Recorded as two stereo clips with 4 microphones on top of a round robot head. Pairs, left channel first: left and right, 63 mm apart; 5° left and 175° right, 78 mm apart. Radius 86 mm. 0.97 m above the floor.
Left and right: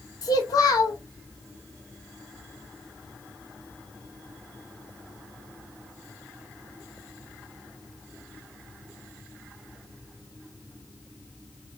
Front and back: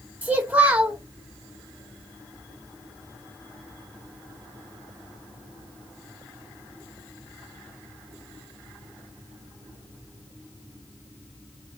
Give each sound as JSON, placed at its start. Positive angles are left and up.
{"t": 0.2, "sound": "a child speaking", "azimuth_deg": 115, "distance_m": 1.6}